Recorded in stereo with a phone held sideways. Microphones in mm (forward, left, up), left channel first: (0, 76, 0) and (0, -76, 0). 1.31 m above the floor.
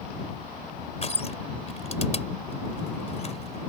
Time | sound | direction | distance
1.0 | crushing | 45° left (ahead or behind) | ?